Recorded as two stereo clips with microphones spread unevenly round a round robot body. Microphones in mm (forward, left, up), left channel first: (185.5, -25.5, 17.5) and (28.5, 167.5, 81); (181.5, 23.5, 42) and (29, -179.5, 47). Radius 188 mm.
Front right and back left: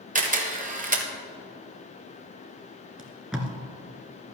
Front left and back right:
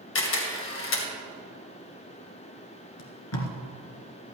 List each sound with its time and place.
0.1 s a camera shutter: 70° left, 2 m
3.0 s tape being pulled: 40° left, 2 m